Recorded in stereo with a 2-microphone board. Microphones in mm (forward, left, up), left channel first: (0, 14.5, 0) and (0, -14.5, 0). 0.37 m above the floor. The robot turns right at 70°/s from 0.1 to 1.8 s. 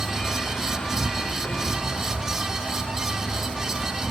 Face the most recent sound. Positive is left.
turn(degrees=140)